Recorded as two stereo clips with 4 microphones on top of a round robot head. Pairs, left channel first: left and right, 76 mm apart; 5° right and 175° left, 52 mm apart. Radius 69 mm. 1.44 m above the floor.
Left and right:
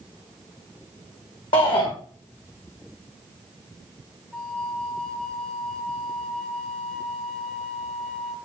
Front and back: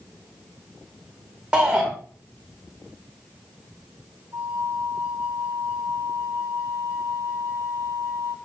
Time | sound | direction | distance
1.5 | a shout | 105° left | 1.8 m
4.3 | a flute | 170° left | 0.7 m